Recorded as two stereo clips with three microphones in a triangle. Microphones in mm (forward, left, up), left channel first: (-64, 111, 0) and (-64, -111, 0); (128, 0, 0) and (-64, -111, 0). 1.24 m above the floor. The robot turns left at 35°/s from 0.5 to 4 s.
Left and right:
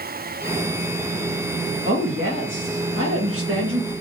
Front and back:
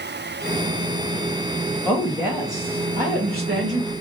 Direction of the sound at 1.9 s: 55° right.